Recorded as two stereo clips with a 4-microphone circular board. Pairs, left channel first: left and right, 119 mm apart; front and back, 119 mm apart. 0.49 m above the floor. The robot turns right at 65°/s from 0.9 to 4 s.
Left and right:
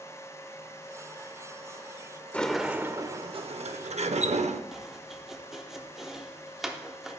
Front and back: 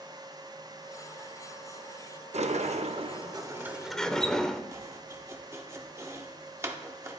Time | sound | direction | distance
2.3 | a sliding door | 165° left | 0.5 m
4.7 | chopping | 170° right | 0.8 m